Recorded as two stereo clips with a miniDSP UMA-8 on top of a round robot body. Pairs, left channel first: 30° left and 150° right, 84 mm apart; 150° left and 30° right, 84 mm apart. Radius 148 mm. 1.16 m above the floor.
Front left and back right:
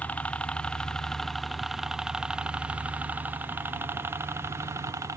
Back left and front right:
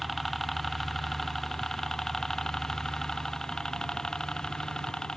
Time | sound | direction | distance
0.0 | a helicopter | 65° left | ?